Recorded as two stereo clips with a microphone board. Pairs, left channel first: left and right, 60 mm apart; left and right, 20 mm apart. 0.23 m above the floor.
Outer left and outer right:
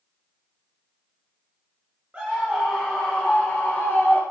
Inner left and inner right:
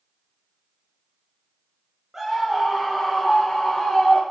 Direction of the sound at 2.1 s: 20° right (ahead or behind).